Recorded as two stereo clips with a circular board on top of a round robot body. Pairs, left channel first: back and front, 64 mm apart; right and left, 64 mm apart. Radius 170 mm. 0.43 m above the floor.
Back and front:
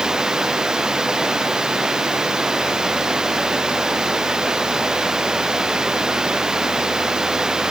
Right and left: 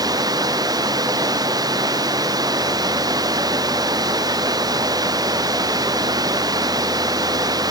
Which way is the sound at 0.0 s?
80° left.